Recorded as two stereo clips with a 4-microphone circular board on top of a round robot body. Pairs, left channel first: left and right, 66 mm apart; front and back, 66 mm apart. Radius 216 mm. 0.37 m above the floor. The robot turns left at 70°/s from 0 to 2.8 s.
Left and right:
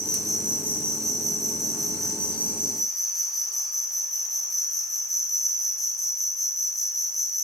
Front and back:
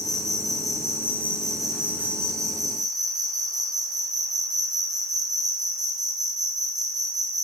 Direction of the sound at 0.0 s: 15° left.